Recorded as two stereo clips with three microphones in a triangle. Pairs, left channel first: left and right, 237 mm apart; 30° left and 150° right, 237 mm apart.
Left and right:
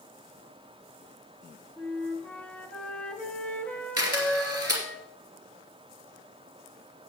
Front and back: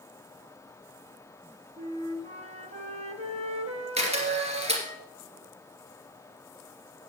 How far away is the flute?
About 1.2 m.